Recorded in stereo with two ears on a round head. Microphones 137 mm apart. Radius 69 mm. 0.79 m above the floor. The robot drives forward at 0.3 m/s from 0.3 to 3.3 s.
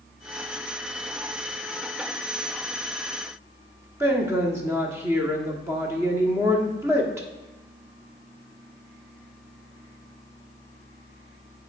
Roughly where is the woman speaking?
Centre.